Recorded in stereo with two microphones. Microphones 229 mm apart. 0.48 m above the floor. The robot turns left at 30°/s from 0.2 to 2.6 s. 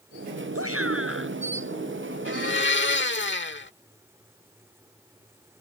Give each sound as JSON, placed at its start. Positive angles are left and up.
{"t": 0.6, "sound": "a shout", "side_deg": -80}
{"t": 2.2, "sound": "a blender", "side_deg": 60}